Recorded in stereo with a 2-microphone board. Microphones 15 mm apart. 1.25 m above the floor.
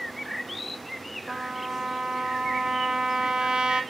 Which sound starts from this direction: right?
A trumpet, at 1.3 s.